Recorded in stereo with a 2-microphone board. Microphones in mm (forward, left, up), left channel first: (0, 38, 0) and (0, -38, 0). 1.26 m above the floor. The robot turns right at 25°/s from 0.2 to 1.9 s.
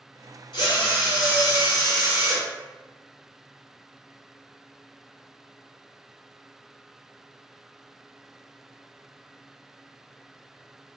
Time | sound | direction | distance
0.5 | a drill | 90° left | 1.0 m